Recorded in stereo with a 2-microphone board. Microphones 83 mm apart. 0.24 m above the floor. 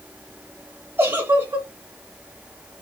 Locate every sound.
1.0 s a giggle: 25° right (ahead or behind), 1.2 m